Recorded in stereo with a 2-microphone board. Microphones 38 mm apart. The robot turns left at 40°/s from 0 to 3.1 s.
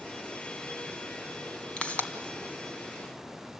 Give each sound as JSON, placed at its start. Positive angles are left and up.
{"t": 1.8, "sound": "a pop", "side_deg": 30, "distance_m": 2.0}